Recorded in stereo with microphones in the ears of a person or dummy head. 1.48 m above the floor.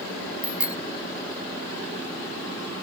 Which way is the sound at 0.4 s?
10° right (ahead or behind).